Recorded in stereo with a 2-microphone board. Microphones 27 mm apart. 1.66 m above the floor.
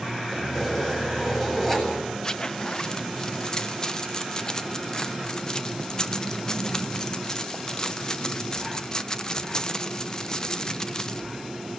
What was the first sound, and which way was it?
Keys jangling, 10° left (ahead or behind).